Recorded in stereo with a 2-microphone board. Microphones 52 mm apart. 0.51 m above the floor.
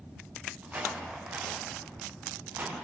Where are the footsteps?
25° right (ahead or behind), 9 m; by 2.8 s 35° right (ahead or behind), 9 m.